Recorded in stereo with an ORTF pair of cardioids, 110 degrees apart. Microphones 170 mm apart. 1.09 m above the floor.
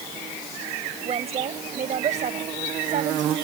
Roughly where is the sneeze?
No sneeze in this recording.